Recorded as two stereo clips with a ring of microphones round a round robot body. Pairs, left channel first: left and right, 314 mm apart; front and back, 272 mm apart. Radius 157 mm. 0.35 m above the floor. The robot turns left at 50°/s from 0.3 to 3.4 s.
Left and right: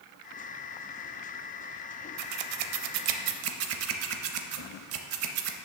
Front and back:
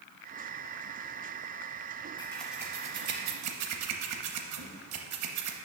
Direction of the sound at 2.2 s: 75° right.